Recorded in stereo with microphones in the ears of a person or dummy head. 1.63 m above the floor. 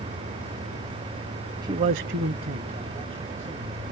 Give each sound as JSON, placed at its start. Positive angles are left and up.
{"t": 1.6, "sound": "a man speaking", "side_deg": -25, "distance_m": 0.8}